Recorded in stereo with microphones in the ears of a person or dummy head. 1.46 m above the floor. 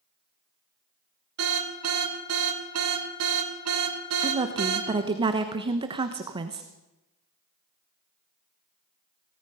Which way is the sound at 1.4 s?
80° right.